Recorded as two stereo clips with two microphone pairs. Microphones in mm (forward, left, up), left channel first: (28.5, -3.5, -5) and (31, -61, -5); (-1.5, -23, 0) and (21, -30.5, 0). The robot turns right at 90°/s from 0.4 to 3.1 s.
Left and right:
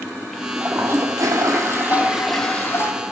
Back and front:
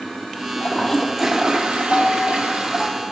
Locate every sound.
0.6 s a toilet flushing: 155° right, 0.8 m; by 2.9 s 55° left, 0.8 m
1.9 s a piano: 150° left, 0.9 m; by 3.0 s 110° right, 0.9 m